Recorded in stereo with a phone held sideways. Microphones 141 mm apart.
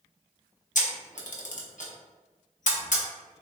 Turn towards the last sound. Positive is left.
turn(degrees=65)  # may be behind; listen again after turning